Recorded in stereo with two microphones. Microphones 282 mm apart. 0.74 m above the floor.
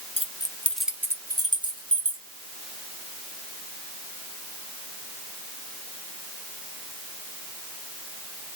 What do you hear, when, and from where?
0.2 s keys jangling: 20° left (ahead or behind), 0.6 m; by 2.2 s 20° right (ahead or behind), 1.3 m